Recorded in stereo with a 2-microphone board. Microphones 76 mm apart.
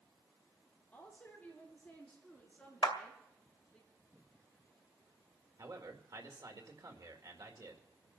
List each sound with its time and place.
0.9 s a woman speaking: 20° left (ahead or behind), 8.5 m; by 3.8 s centre (ahead or behind), 6.5 m
2.8 s a clap: 65° left (ahead or behind), 1.9 m
5.6 s a man speaking: 55° right (ahead or behind), 2.0 m